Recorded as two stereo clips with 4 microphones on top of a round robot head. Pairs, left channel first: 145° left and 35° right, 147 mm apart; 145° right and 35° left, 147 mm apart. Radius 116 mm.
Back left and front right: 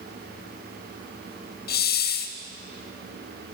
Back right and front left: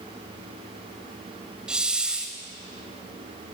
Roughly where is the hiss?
Behind left.